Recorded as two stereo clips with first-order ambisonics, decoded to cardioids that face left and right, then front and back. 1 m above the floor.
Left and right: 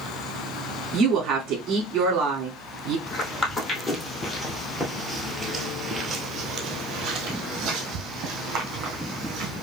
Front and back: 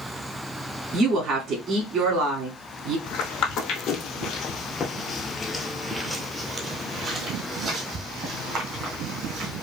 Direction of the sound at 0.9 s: 135° right.